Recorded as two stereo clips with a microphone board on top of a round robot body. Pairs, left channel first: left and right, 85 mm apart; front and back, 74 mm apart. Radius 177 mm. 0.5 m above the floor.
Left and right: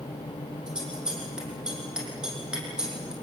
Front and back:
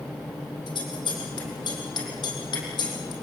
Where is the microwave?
No microwave in this recording.